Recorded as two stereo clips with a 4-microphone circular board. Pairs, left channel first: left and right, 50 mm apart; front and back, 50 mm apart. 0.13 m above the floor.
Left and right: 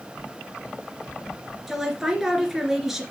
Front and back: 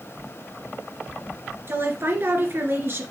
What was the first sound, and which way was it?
A woman speaking, 170° right.